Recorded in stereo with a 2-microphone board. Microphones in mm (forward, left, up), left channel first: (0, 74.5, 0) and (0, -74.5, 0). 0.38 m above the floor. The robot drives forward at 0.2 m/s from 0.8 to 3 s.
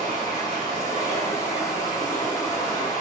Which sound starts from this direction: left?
Running water, at 0.0 s.